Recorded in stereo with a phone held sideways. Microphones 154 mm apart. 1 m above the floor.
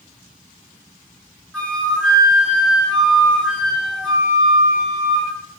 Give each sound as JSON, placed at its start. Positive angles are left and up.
{"t": 1.5, "sound": "a flute", "side_deg": 5, "distance_m": 6.0}